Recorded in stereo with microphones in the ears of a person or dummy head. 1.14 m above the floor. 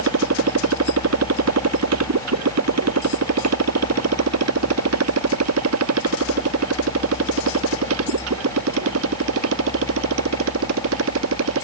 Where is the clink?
I don't hear a clink.